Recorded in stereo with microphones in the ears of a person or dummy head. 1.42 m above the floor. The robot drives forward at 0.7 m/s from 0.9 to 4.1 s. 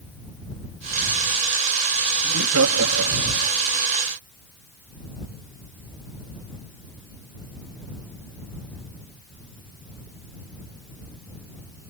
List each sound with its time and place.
2.2 s laughter: 85° right; by 3.5 s 70° right (ahead or behind)